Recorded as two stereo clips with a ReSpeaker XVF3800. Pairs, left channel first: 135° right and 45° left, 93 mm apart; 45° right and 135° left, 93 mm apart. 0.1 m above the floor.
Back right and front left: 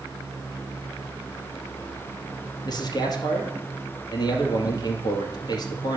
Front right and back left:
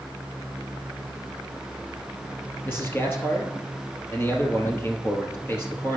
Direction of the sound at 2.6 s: 105° right.